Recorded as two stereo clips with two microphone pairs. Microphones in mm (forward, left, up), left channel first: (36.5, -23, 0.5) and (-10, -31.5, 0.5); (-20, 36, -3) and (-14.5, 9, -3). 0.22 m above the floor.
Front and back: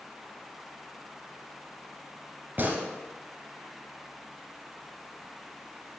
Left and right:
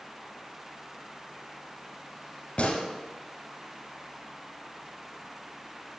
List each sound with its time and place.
2.6 s a gunshot: 145° left, 1.4 m